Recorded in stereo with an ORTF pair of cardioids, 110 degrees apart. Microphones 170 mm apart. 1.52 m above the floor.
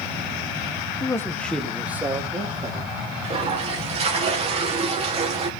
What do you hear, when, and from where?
1.0 s a man speaking: 20° left, 1.8 m; by 2.9 s 30° right, 3 m
3.2 s a toilet flushing: 40° right, 2.5 m